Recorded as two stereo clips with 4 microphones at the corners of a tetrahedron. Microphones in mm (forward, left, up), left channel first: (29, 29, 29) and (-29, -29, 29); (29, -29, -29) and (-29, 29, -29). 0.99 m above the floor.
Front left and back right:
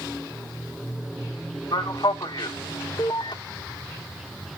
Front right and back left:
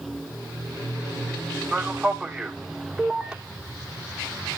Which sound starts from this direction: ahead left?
A man speaking, at 1.7 s.